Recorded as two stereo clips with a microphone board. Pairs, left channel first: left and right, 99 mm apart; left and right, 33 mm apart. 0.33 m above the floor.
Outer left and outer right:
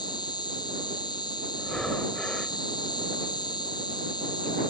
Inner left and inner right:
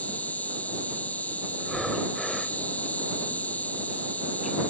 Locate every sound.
0.0 s an insect: 45° left (ahead or behind)
1.6 s breathing: 5° left (ahead or behind)